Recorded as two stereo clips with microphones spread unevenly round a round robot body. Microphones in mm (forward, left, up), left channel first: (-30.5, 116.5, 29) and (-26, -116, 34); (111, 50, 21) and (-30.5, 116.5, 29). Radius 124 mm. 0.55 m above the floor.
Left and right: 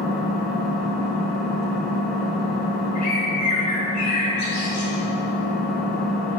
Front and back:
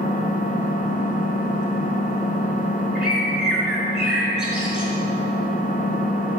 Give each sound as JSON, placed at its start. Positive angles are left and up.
{"t": 0.0, "sound": "an engine running", "azimuth_deg": 5, "distance_m": 2.0}
{"t": 3.0, "sound": "a bird", "azimuth_deg": 70, "distance_m": 4.5}